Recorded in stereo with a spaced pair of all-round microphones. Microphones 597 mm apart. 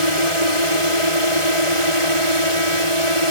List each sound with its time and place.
0.0 s a drone: 60° right (ahead or behind)